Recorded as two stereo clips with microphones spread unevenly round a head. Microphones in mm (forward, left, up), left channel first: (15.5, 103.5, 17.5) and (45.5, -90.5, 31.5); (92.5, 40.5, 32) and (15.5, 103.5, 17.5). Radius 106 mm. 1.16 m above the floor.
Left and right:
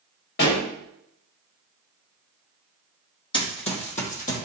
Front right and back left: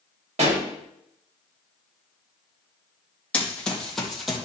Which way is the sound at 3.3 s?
35° left.